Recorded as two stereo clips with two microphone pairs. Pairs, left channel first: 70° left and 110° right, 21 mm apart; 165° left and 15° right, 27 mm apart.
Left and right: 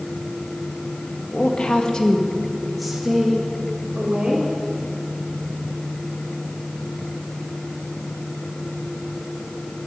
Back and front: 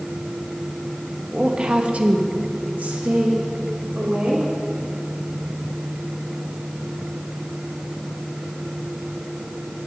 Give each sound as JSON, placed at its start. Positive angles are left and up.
{"t": 1.3, "sound": "a woman speaking", "azimuth_deg": 45, "distance_m": 1.5}